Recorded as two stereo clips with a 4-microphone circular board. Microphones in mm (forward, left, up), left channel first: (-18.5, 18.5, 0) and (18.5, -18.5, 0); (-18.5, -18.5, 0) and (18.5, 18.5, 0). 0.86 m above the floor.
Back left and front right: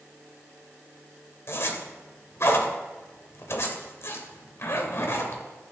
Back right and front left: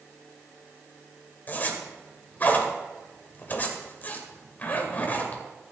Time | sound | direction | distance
1.5 | a zipper | 170° left | 2.0 m